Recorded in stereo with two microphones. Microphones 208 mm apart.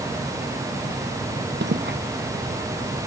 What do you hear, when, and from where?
1.6 s footsteps: 60° right (ahead or behind)